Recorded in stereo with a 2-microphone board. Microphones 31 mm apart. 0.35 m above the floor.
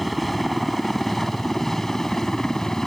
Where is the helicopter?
Centre (ahead or behind); by 2.9 s 15° left (ahead or behind).